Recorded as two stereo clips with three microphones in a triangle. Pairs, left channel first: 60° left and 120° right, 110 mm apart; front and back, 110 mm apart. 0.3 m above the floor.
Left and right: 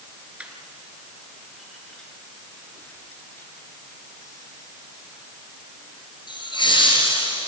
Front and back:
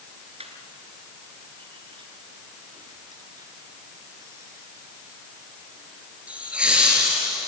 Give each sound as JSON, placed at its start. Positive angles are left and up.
{"t": 0.4, "sound": "laughter", "azimuth_deg": 160, "distance_m": 4.0}